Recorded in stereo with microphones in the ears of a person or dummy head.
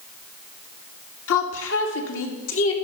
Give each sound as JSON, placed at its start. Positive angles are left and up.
{"t": 1.3, "sound": "a woman speaking", "side_deg": 80, "distance_m": 1.8}